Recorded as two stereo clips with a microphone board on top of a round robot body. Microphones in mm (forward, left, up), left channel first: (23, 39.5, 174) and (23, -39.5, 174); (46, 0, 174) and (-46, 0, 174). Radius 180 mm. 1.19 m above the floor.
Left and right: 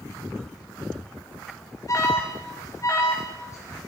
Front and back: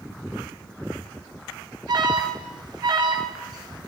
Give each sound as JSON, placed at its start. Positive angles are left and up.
{"t": 1.9, "sound": "an alarm", "azimuth_deg": 140, "distance_m": 3.5}